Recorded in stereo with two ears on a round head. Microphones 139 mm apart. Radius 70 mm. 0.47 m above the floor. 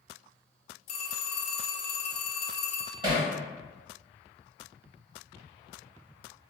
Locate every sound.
0.9 s a phone ringing: 45° left (ahead or behind), 0.6 m
3.0 s hammering: 30° right (ahead or behind), 1.1 m